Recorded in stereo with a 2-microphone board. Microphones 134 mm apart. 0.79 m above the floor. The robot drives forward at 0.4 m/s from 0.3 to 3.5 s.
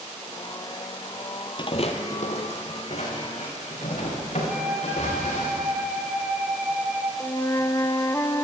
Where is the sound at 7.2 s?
20° left (ahead or behind), 0.5 m.